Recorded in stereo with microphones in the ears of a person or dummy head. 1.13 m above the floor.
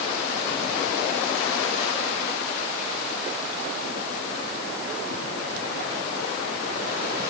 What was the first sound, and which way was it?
Only background noise.